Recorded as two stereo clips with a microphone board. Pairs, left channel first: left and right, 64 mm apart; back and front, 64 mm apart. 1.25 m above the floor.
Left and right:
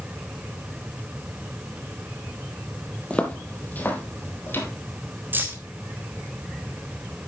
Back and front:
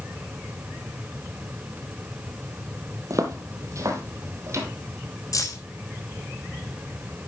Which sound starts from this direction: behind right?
Keys jangling, at 5.3 s.